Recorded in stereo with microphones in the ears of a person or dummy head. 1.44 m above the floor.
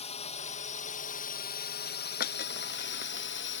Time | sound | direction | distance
0.0 | a drone | 35° left (ahead or behind) | ?
2.2 | breaking glass | 60° left (ahead or behind) | ?